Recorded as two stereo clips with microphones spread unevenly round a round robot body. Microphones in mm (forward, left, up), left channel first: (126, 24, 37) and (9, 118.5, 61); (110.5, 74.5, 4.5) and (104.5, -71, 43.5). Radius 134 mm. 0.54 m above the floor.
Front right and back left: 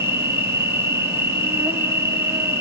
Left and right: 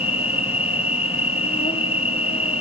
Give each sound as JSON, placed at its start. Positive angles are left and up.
{"t": 0.0, "sound": "an insect", "azimuth_deg": 60, "distance_m": 1.0}